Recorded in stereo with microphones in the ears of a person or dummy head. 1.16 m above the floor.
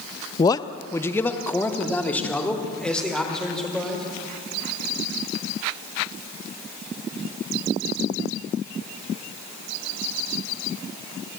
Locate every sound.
0.4 s a man speaking: 30° left (ahead or behind), 0.7 m; by 4.0 s 10° left (ahead or behind), 4 m